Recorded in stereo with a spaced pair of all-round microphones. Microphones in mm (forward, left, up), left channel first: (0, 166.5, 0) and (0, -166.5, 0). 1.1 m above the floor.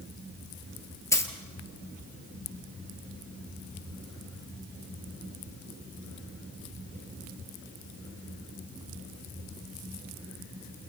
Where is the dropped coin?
10° left (ahead or behind), 1.9 m.